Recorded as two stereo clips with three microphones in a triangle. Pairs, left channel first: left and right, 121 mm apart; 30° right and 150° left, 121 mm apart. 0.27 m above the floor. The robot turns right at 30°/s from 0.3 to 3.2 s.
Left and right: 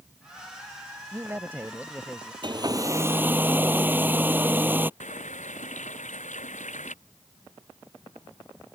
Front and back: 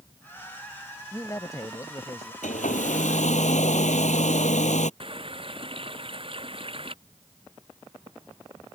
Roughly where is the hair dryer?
Ahead right.